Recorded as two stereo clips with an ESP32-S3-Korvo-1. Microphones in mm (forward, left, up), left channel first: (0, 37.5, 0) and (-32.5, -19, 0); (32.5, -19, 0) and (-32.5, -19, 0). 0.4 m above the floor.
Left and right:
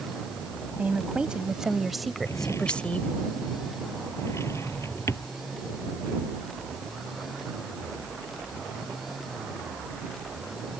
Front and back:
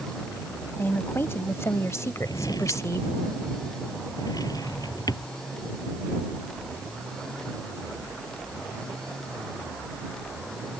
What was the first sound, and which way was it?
A woman speaking, 55° right.